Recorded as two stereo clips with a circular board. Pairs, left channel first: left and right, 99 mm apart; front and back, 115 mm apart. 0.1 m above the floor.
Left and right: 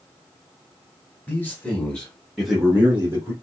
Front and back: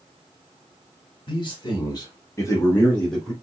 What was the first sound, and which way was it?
A man speaking, 25° left.